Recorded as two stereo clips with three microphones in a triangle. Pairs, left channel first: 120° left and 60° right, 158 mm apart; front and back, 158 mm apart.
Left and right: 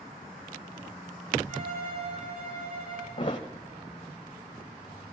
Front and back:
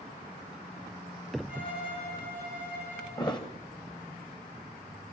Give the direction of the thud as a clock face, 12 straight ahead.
10 o'clock.